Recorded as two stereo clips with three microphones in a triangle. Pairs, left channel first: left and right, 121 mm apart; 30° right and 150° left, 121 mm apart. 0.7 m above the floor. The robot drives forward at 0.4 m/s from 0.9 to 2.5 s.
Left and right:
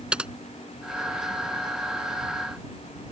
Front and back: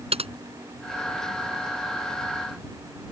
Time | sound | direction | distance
0.1 | typing on a keyboard | 170° right | ?